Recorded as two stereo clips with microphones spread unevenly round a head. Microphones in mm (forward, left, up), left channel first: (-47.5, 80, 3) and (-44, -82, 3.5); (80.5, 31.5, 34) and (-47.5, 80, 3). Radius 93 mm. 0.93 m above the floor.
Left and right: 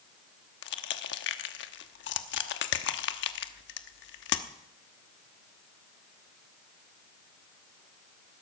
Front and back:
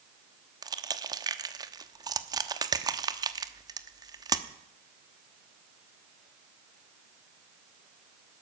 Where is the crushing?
95° left, 1.0 m.